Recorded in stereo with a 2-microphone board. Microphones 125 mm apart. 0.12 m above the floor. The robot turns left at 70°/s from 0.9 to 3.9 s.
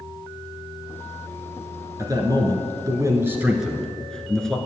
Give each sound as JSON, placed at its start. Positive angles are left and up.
{"t": 2.0, "sound": "a man speaking", "azimuth_deg": -55, "distance_m": 1.6}